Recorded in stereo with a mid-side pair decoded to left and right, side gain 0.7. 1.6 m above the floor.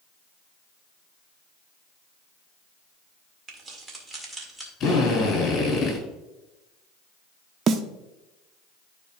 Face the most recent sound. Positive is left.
turn(degrees=-40)